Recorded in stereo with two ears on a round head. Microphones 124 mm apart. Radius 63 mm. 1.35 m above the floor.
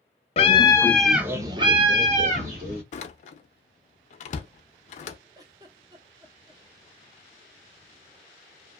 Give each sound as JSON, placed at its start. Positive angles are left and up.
{"t": 0.4, "sound": "a scream", "side_deg": 45, "distance_m": 0.6}
{"t": 2.9, "sound": "a door slam", "side_deg": 55, "distance_m": 0.5}
{"t": 5.3, "sound": "a giggle", "side_deg": -25, "distance_m": 0.7}